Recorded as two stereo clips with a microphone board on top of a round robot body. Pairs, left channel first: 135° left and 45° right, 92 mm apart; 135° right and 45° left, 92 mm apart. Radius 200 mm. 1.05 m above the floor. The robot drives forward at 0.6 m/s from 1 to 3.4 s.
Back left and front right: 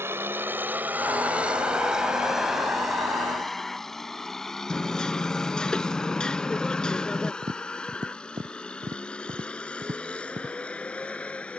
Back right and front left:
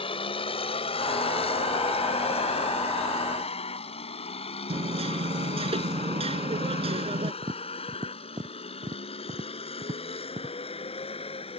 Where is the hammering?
55° left.